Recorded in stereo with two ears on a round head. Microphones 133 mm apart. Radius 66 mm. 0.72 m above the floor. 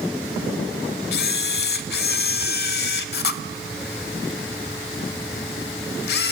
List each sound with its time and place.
1.1 s a camera shutter: 75° left (ahead or behind), 1.2 m